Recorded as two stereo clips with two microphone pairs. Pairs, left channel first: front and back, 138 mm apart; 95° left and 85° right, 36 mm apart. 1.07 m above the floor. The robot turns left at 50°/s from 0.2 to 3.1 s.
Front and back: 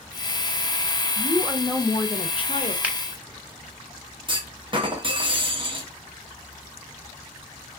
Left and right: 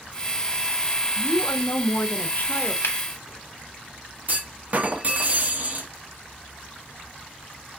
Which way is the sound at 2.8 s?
100° left.